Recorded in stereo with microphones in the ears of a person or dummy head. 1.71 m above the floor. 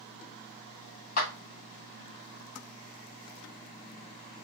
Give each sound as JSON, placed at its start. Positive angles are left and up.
{"t": 1.2, "sound": "a clap", "side_deg": 50, "distance_m": 1.1}